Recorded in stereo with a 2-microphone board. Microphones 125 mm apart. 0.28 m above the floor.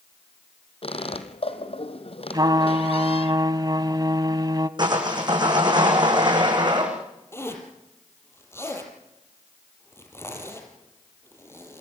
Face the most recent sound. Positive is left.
turn(degrees=20)  # may be behind; listen again after turning